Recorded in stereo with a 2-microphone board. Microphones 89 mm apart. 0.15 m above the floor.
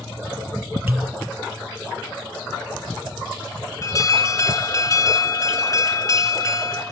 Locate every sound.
0.9 s a pop: 15° right (ahead or behind), 2 m
3.8 s an alarm: 40° left (ahead or behind), 1.8 m